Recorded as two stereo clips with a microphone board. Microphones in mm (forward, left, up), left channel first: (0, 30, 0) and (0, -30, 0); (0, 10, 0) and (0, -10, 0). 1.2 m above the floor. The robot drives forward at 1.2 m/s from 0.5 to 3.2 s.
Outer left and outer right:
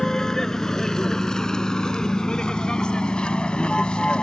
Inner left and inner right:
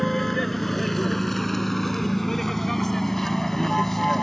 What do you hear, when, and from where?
0.0 s a vehicle: 10° left (ahead or behind); by 4.2 s 15° left (ahead or behind)